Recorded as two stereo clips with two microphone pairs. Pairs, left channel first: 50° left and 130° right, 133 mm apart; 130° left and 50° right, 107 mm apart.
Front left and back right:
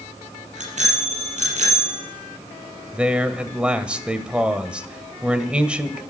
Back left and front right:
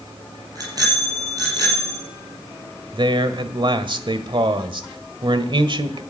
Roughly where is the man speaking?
Ahead right.